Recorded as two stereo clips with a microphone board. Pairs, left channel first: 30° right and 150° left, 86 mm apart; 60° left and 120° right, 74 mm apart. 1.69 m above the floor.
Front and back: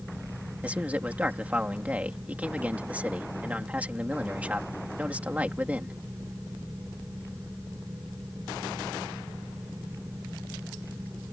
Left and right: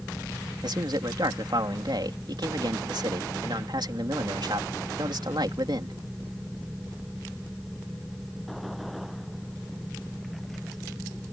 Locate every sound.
0.6 s a man speaking: 135° right